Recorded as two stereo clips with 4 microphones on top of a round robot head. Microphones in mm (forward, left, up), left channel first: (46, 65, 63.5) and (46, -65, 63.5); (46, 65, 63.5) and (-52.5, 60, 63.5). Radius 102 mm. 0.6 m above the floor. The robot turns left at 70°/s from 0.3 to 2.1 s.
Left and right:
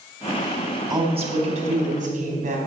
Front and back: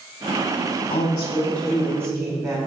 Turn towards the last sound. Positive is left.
turn(degrees=-115)